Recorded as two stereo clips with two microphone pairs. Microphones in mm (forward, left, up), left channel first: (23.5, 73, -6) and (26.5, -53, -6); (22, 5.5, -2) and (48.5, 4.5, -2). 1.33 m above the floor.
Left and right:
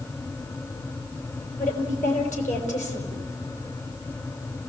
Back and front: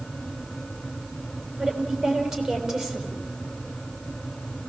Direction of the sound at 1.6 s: 75° left.